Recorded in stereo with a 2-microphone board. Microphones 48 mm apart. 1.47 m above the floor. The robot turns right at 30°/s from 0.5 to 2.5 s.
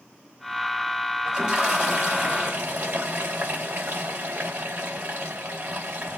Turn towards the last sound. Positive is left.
turn(degrees=-125)